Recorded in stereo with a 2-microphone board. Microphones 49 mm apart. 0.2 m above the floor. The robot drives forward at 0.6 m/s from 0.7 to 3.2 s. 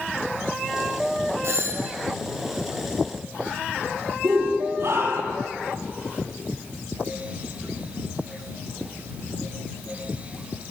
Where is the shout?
55° right (ahead or behind), 5.5 m.